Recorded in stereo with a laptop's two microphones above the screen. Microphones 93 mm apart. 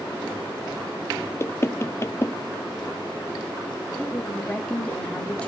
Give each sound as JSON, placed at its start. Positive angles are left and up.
{"t": 1.4, "sound": "knocking", "side_deg": 30, "distance_m": 0.6}
{"t": 4.0, "sound": "a woman speaking", "side_deg": 15, "distance_m": 1.8}